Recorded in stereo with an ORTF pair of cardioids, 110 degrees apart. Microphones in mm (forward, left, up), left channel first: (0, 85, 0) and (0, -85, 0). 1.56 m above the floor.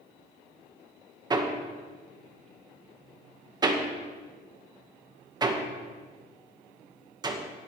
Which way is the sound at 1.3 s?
25° right.